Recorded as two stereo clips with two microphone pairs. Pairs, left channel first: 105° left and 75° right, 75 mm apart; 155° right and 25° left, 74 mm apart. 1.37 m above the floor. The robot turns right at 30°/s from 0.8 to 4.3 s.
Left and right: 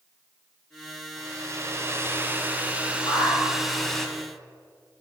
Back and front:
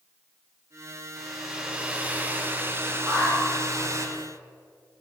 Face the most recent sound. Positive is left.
turn(degrees=145)